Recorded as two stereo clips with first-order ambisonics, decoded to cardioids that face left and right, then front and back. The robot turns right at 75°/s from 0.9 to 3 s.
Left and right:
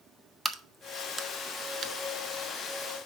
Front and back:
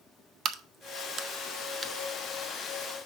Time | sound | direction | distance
0.5 | a crack | 175° left | 0.5 m